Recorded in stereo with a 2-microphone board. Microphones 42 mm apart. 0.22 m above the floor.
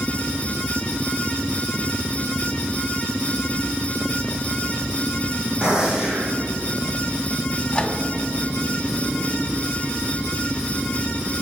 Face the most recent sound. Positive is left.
turn(degrees=30)  # may be behind; listen again after turning